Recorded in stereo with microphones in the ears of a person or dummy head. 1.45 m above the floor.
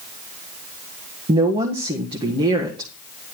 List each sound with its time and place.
1.3 s a woman speaking: 30° right (ahead or behind), 1.5 m